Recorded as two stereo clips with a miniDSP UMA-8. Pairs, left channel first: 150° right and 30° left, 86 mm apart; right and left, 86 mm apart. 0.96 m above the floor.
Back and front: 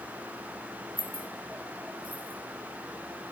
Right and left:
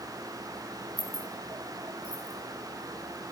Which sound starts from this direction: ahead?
Keys jangling, at 1.0 s.